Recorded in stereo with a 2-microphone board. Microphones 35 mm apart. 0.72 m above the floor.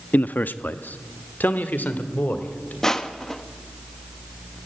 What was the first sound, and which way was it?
A man speaking, 50° left (ahead or behind).